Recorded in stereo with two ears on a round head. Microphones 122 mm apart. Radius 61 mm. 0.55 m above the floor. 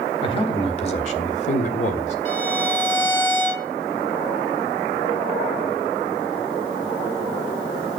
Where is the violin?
50° left (ahead or behind), 7.5 m.